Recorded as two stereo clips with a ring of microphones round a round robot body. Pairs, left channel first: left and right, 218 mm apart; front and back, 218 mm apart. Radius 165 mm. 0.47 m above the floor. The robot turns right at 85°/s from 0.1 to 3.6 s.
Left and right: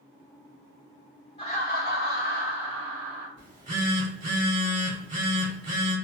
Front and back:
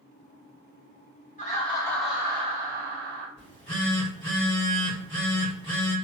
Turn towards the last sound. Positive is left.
turn(degrees=-65)